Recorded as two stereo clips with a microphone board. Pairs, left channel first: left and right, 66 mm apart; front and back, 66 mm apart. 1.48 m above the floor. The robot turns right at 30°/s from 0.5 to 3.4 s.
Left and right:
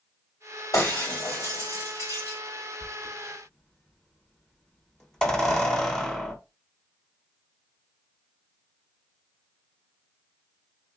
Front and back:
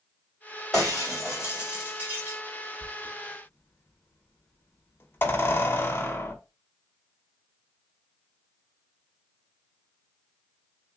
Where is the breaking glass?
80° left, 2.5 m; by 2.4 s 130° left, 2.5 m.